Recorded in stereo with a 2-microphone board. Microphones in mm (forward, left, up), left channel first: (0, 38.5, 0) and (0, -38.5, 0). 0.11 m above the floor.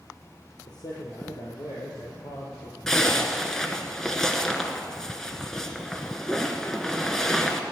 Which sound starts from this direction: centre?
A zipper, at 2.9 s.